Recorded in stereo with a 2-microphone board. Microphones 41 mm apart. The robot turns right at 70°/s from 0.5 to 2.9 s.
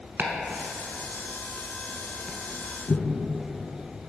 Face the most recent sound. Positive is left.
turn(degrees=45)  # may be behind; listen again after turning